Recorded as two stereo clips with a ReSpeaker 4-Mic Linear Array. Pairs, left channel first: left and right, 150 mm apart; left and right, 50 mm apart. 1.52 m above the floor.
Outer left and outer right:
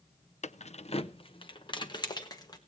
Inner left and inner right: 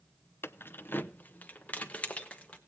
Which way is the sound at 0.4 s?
50° left (ahead or behind).